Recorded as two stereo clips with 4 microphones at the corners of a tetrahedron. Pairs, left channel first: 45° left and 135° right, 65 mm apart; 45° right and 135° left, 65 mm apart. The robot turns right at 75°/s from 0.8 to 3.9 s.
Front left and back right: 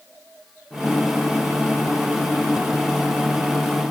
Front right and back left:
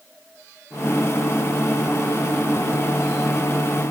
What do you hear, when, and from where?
Only background noise.